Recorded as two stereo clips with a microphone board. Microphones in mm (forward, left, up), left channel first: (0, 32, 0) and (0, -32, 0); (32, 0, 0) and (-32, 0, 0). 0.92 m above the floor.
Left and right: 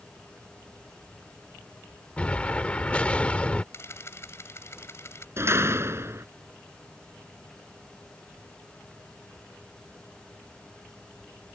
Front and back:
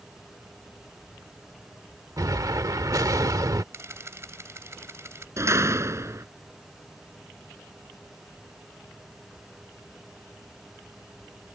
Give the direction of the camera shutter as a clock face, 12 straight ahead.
7 o'clock.